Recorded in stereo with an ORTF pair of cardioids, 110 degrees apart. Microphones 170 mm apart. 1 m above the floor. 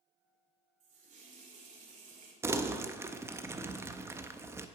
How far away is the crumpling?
About 0.6 m.